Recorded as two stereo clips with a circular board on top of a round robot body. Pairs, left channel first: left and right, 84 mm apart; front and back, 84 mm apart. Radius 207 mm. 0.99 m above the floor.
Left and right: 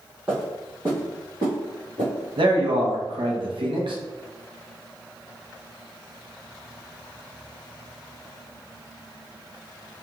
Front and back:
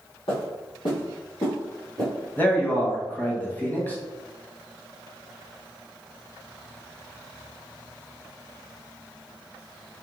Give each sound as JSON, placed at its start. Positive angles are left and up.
{"t": 0.3, "sound": "footsteps", "azimuth_deg": -10, "distance_m": 1.9}
{"t": 2.4, "sound": "a man speaking", "azimuth_deg": -70, "distance_m": 1.0}